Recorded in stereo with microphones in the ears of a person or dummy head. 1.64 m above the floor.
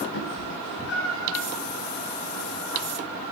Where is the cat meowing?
70° left (ahead or behind), 3.5 m; by 1.4 s 80° left, 4.5 m.